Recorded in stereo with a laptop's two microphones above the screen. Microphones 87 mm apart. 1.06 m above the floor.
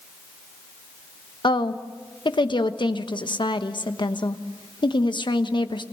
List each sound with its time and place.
1.4 s a woman speaking: 65° left (ahead or behind), 1.1 m